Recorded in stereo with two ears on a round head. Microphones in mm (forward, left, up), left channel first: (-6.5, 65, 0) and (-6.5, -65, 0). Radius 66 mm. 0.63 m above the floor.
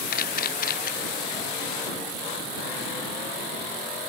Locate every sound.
0.1 s a camera shutter: 65° left (ahead or behind)